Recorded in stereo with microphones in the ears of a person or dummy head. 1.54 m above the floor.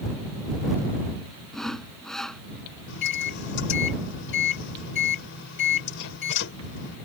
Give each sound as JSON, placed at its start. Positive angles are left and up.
{"t": 1.5, "sound": "sawing", "side_deg": 0}
{"t": 2.9, "sound": "a microwave", "side_deg": 65}